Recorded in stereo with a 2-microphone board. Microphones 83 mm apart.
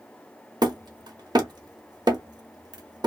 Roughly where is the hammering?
Right.